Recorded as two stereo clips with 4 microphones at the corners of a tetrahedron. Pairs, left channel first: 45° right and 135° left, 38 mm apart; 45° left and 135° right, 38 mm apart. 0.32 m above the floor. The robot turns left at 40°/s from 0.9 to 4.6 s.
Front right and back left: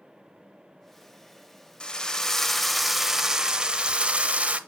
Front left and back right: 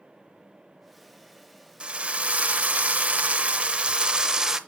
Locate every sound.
1.8 s a drill: 95° right, 0.6 m; by 4.6 s 150° left, 0.6 m